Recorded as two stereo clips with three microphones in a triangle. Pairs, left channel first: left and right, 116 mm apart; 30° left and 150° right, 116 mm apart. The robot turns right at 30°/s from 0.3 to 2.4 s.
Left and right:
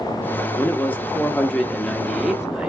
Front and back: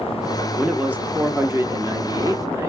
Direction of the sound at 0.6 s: 135° left.